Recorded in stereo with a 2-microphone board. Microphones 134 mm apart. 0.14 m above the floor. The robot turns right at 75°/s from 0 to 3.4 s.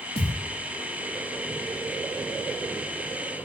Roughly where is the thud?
Left.